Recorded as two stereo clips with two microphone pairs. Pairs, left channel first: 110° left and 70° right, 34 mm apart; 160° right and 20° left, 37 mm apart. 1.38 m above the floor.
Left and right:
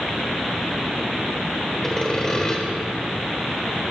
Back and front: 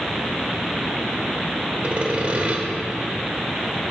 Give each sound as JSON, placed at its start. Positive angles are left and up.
{"t": 1.8, "sound": "sawing", "azimuth_deg": 45, "distance_m": 1.4}